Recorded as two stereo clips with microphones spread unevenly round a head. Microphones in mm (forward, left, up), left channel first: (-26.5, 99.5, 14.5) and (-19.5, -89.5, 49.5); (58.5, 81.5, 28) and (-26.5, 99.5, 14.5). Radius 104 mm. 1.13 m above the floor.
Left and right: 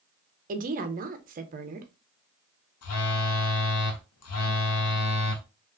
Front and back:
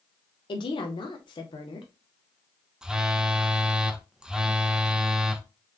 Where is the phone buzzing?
85° left, 0.6 m.